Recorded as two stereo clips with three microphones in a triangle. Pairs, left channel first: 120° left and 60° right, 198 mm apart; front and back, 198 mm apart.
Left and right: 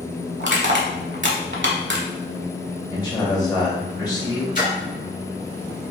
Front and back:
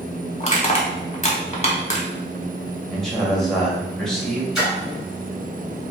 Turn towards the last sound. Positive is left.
turn(degrees=95)